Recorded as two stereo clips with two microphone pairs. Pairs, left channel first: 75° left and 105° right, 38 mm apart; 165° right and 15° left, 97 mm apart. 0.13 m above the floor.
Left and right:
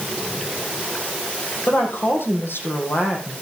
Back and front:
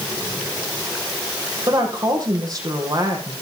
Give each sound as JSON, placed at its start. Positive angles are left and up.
{"t": 1.7, "sound": "a woman speaking", "azimuth_deg": 65, "distance_m": 5.0}